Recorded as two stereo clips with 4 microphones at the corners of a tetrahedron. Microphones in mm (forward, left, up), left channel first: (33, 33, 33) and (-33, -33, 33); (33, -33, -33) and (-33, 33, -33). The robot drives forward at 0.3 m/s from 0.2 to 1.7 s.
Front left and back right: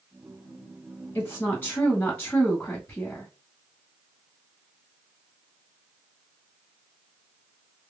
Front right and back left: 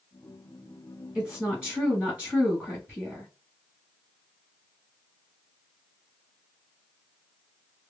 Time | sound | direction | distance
1.1 | a woman speaking | 65° left | 1.6 m